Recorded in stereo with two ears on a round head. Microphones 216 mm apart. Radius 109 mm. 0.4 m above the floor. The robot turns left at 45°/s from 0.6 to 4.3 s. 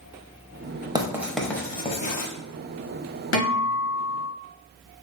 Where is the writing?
15° right (ahead or behind), 0.7 m; by 2.3 s 40° left (ahead or behind), 0.7 m.